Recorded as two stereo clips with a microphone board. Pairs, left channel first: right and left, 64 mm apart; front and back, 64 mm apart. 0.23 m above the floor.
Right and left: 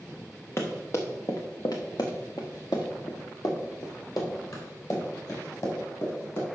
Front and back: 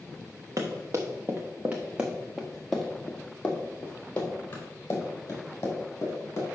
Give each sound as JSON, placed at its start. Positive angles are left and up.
{"t": 0.6, "sound": "running footsteps", "azimuth_deg": -145, "distance_m": 1.9}